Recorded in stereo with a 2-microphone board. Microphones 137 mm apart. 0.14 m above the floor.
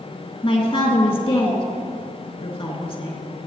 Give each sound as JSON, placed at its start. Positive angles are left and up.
{"t": 0.4, "sound": "a man speaking", "side_deg": 45, "distance_m": 2.0}